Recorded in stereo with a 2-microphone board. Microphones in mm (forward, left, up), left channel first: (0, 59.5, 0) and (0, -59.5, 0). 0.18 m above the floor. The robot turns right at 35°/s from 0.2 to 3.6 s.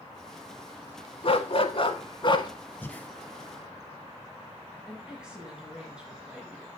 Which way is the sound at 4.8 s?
5° right (ahead or behind).